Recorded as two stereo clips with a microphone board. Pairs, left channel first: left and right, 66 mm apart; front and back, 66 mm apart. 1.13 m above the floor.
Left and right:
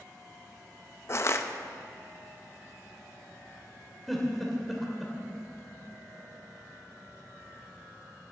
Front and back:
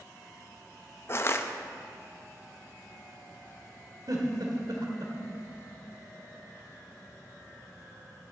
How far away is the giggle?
About 1.6 m.